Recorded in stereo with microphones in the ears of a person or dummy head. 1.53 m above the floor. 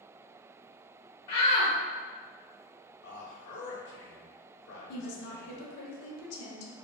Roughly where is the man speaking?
Left.